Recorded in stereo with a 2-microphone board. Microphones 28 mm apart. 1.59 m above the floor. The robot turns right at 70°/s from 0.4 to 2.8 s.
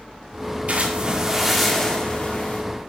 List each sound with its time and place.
0.7 s a splash: 65° right, 2.5 m; by 2.6 s 70° left, 2.5 m